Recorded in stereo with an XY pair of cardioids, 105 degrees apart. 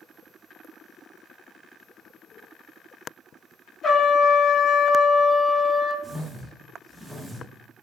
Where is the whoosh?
40° right, 1.2 m.